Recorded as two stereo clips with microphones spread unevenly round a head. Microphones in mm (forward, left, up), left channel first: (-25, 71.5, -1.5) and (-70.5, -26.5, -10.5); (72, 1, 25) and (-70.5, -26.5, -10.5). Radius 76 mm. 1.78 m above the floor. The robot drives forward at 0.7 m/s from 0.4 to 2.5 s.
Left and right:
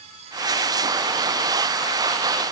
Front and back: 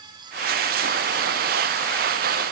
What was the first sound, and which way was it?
Only background noise.